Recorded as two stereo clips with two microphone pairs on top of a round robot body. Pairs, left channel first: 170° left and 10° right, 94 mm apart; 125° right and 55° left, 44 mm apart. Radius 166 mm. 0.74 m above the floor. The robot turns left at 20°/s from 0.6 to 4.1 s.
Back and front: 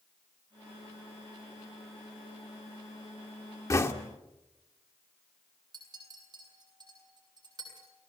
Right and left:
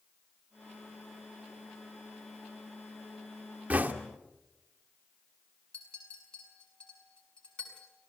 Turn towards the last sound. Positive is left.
turn(degrees=-55)